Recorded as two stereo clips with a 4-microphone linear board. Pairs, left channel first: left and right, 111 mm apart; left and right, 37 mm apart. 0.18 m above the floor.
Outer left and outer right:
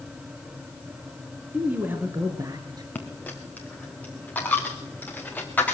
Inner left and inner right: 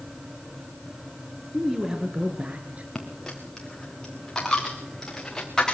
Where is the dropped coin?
15° left (ahead or behind), 3 m.